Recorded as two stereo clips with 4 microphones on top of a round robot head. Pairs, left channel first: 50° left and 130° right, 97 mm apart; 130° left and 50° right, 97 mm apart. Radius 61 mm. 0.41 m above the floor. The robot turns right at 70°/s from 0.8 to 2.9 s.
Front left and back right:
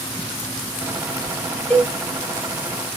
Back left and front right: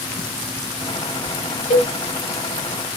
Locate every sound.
1.7 s a cowbell: 130° left, 0.7 m; by 1.9 s 145° left, 0.7 m